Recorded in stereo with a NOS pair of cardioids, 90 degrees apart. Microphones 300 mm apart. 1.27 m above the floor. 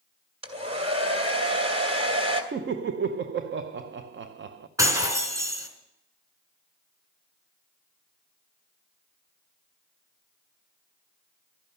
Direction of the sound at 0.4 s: 20° right.